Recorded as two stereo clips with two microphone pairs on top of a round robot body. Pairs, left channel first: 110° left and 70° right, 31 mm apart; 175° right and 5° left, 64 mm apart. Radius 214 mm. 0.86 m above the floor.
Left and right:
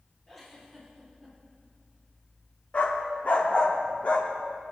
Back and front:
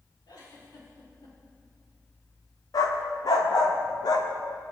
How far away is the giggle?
About 3.5 m.